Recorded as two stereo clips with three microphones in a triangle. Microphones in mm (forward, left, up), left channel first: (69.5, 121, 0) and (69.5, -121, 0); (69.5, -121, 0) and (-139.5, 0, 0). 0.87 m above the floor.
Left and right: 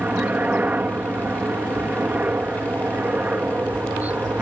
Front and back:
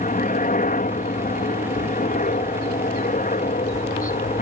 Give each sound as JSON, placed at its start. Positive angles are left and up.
{"t": 0.0, "sound": "a helicopter", "azimuth_deg": -10}